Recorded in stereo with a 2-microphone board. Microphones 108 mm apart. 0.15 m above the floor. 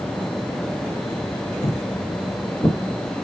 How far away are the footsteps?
About 1.0 m.